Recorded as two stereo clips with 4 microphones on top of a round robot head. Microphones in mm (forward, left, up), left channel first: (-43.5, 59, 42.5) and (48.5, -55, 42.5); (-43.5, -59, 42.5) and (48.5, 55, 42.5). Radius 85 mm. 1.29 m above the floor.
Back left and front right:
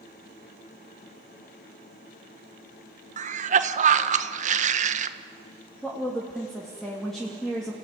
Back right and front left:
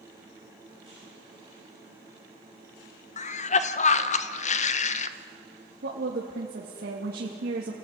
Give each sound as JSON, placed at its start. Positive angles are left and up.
{"t": 3.2, "sound": "a cough", "azimuth_deg": -90, "distance_m": 1.4}
{"t": 5.8, "sound": "a woman speaking", "azimuth_deg": 40, "distance_m": 2.5}